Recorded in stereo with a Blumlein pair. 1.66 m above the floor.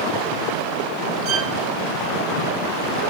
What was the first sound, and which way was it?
A violin, 40° right.